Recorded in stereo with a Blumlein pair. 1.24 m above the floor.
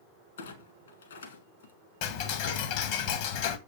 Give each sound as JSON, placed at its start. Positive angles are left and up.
{"t": 0.4, "sound": "a clunk", "azimuth_deg": 65, "distance_m": 1.4}
{"t": 2.0, "sound": "ticking", "azimuth_deg": 45, "distance_m": 0.8}